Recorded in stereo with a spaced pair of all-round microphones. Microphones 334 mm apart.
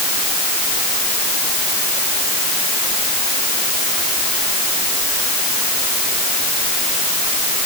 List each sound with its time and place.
Only background noise.